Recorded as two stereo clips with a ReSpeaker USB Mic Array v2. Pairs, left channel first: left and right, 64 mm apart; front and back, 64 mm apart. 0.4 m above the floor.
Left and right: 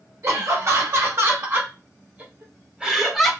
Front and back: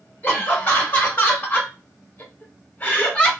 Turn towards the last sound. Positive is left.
turn(degrees=10)